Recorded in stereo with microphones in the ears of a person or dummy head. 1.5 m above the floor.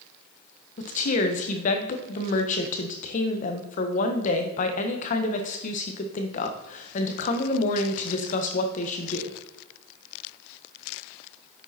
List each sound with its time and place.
0.8 s a woman speaking: 45° left (ahead or behind), 1.5 m